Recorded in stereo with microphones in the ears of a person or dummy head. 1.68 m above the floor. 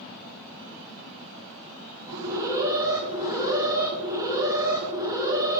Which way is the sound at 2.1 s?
15° right (ahead or behind).